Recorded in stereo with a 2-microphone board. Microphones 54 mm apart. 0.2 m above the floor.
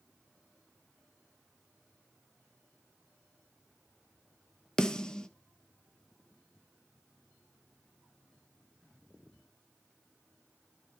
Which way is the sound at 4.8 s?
10° left (ahead or behind).